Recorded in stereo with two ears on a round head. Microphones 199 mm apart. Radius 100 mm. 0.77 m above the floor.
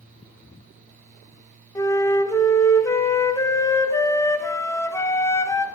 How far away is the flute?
About 0.7 m.